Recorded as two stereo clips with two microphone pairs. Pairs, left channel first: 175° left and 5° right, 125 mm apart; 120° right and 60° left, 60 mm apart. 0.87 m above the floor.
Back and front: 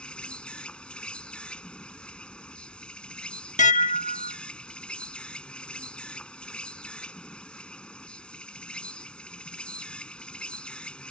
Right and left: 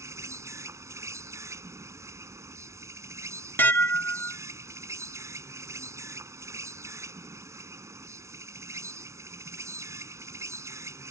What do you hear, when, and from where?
0.0 s an insect: 95° left
3.6 s dishes clattering: 175° right